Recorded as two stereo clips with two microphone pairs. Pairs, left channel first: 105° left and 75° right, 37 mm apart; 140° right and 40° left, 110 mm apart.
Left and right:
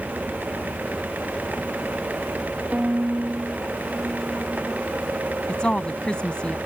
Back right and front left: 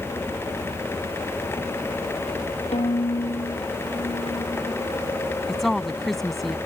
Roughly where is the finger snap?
No finger snap in this recording.